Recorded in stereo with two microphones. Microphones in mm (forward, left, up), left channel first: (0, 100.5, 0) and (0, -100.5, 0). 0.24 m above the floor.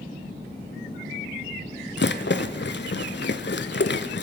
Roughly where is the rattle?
Left.